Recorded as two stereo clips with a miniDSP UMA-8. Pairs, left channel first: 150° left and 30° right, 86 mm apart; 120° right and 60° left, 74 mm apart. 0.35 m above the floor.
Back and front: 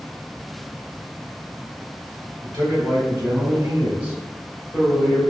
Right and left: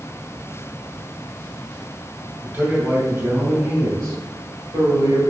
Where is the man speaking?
Straight ahead, 1.8 m; by 5.2 s 60° left, 1.7 m.